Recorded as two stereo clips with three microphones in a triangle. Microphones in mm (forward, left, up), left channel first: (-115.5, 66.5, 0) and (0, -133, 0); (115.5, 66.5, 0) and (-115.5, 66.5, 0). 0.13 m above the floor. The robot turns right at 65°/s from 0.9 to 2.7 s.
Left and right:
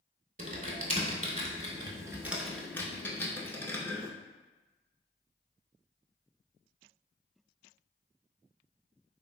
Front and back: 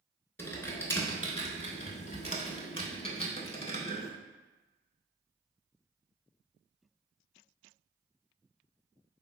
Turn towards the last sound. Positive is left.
turn(degrees=45)